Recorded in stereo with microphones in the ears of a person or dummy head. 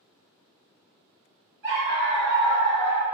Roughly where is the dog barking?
Right.